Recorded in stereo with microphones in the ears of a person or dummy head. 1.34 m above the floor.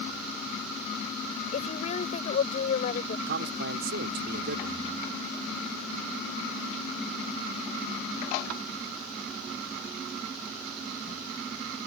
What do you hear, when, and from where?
1.5 s a woman speaking: 45° left (ahead or behind)
3.3 s a man speaking: 55° right (ahead or behind)